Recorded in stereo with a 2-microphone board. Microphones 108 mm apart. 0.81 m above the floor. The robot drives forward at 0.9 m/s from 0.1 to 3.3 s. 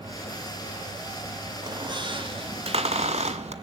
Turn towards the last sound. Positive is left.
turn(degrees=-85)